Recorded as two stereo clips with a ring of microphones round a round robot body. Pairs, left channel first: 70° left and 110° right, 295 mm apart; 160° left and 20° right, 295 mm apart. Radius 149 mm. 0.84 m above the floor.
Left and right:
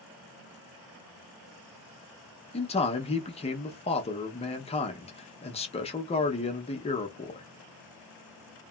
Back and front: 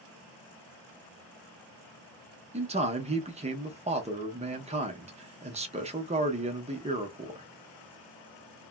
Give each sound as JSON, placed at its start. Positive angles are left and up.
{"t": 2.5, "sound": "a man speaking", "azimuth_deg": 20, "distance_m": 0.6}